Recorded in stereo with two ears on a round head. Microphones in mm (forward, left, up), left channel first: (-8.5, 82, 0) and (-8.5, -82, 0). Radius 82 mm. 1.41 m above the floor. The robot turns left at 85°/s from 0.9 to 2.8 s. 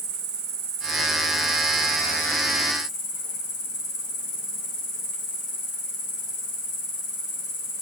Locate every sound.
0.0 s an insect: 65° right, 4.5 m; by 7.8 s 130° left, 4.5 m